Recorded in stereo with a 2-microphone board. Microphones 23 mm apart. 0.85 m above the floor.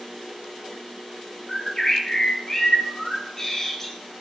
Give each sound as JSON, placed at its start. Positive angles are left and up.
{"t": 1.5, "sound": "a bird", "side_deg": 25, "distance_m": 0.8}